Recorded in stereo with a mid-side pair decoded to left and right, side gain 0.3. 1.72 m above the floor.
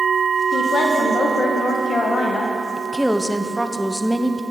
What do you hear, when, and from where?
0.5 s a woman speaking: 70° left, 1.4 m
2.8 s a woman speaking: straight ahead, 0.8 m